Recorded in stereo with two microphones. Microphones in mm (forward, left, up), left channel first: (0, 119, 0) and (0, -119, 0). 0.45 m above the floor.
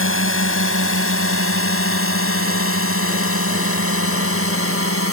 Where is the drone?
60° left (ahead or behind); by 5.1 s 65° left (ahead or behind).